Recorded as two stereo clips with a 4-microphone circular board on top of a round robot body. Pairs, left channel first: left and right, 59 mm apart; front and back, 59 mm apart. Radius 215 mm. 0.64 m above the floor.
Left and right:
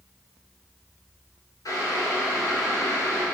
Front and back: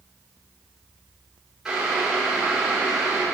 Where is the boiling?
100° left, 4.5 m.